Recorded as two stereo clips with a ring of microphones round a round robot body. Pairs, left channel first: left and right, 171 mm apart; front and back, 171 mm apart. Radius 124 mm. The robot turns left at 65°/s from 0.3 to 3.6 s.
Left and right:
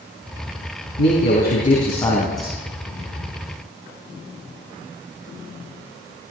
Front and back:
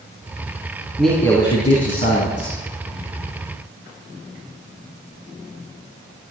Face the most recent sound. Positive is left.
turn(degrees=-75)